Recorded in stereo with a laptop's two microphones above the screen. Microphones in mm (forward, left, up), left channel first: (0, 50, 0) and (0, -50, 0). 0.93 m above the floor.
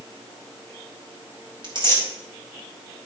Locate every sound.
1.6 s tearing paper: 55° right (ahead or behind), 3 m